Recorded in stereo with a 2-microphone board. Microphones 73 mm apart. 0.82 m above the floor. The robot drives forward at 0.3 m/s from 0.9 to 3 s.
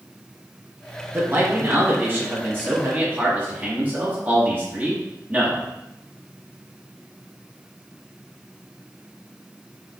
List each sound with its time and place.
1.1 s a man speaking: 35° right (ahead or behind), 1.0 m; by 5.6 s 25° right (ahead or behind), 1.2 m